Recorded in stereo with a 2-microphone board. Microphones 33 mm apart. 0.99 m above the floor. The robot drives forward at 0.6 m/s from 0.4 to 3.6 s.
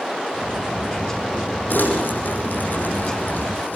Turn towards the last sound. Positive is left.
turn(degrees=85)